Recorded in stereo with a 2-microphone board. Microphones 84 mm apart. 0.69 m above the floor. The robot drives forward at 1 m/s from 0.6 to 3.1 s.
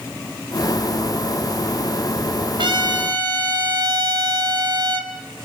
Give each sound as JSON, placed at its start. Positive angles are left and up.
{"t": 2.6, "sound": "a trumpet", "side_deg": -70, "distance_m": 2.5}